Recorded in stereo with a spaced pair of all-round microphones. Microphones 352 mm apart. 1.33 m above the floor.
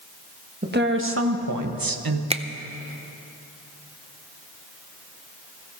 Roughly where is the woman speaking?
Right.